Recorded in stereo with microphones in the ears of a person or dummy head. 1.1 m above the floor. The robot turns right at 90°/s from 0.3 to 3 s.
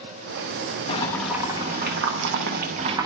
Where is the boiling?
145° left, 0.7 m; by 3.1 s 25° right, 0.7 m.